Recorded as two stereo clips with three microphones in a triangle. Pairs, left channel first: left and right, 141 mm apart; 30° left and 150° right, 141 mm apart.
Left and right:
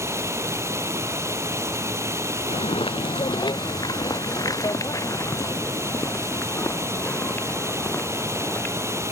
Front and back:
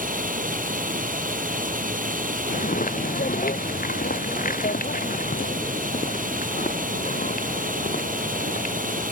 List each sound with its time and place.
0.0 s running water: 160° right
2.5 s footsteps: 45° left; by 9.0 s 15° left